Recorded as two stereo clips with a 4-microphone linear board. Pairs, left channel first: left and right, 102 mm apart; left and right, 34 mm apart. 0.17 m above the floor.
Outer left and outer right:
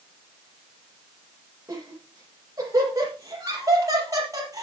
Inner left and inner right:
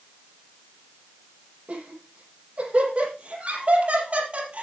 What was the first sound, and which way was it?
Laughter, 35° right (ahead or behind).